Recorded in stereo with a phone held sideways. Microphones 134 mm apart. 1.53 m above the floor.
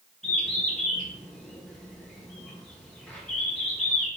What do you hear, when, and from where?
0.2 s a bird: 5° left (ahead or behind), 0.9 m